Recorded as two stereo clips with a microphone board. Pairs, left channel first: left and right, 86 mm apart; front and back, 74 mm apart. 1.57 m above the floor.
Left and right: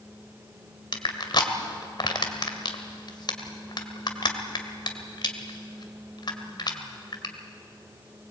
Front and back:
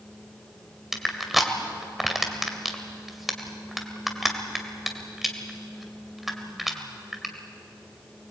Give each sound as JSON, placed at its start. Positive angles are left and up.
{"t": 0.9, "sound": "crushing", "azimuth_deg": 90, "distance_m": 2.0}